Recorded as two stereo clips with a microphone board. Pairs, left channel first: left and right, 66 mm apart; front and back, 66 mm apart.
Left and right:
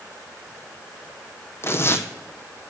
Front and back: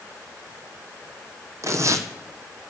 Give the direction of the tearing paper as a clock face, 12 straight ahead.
7 o'clock.